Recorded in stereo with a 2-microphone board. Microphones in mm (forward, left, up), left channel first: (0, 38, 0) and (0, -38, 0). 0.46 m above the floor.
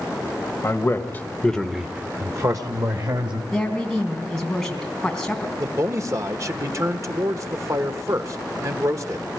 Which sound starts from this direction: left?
A man speaking, at 0.6 s.